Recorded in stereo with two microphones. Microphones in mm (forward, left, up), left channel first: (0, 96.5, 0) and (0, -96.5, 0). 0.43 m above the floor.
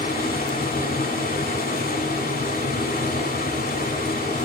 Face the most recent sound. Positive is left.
turn(degrees=50)  # may be behind; listen again after turning